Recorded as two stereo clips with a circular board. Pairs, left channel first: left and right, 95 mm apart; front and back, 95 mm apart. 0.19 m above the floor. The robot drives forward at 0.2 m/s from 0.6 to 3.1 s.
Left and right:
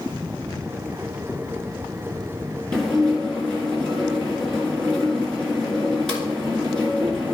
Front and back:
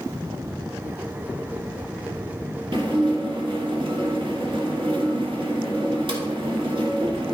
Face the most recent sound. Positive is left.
turn(degrees=170)